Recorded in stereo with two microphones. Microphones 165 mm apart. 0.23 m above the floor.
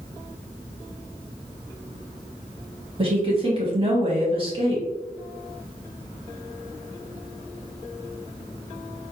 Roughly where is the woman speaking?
Right.